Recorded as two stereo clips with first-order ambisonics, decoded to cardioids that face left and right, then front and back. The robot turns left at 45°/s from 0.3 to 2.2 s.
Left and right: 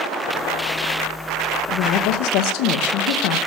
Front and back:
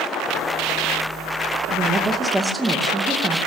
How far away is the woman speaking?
About 2 m.